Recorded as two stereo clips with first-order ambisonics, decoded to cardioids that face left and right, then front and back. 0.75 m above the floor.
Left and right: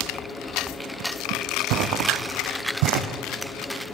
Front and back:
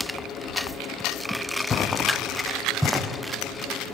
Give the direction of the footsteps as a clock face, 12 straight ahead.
2 o'clock.